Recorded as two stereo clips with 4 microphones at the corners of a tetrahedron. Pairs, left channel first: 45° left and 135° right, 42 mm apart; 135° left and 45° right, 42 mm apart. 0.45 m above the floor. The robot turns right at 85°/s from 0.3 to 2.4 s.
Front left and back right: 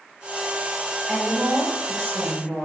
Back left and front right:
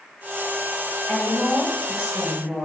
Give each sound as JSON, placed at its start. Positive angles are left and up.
{"t": 1.1, "sound": "a woman speaking", "azimuth_deg": 150, "distance_m": 1.7}